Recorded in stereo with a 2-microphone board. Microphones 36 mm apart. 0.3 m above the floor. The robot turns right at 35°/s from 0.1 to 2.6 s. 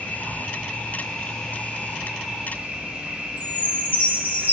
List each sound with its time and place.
0.0 s an insect: 120° left, 2.5 m; by 4.5 s 155° right, 2.5 m
3.4 s a chime: 55° right (ahead or behind), 2.5 m